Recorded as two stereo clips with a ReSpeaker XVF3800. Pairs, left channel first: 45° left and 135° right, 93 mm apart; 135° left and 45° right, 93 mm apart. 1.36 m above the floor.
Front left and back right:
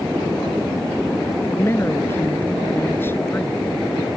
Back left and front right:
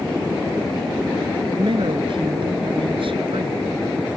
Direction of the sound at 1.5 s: 20° right.